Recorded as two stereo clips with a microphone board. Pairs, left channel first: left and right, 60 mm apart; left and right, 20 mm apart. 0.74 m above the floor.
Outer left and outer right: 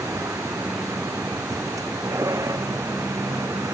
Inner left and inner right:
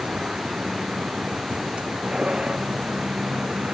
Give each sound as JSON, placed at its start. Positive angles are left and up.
{"t": 0.0, "sound": "a vehicle", "side_deg": -70}